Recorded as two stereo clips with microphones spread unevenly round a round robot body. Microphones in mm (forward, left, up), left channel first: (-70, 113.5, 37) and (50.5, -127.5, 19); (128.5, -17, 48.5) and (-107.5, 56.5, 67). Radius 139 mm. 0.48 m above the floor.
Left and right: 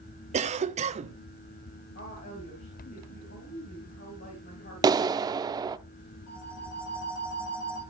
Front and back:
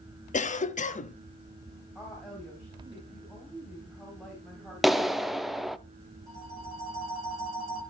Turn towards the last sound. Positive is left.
turn(degrees=85)